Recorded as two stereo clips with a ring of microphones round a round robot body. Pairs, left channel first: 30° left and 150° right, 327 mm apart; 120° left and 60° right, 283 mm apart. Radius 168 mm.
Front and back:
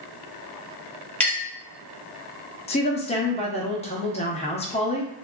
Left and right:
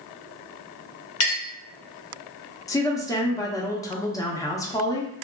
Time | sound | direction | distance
1.2 | a clink | 115° left | 0.9 m
2.7 | a woman speaking | 60° left | 0.6 m